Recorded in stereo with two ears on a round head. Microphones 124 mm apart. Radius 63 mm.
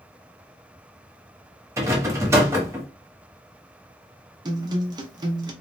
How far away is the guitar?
About 0.6 m.